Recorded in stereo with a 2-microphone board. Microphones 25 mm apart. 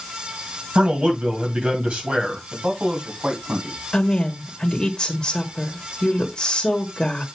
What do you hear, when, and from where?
0.8 s a man speaking: 60° right (ahead or behind), 2.5 m
2.5 s a man speaking: 55° right (ahead or behind), 2.5 m
3.9 s a woman speaking: 25° left (ahead or behind), 1.2 m